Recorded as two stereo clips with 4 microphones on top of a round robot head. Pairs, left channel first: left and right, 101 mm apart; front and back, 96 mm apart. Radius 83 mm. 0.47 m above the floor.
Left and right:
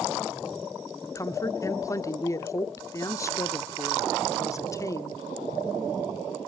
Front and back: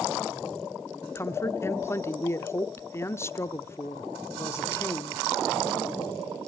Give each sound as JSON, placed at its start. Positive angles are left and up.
{"t": 1.0, "sound": "a woman speaking", "azimuth_deg": 50, "distance_m": 0.9}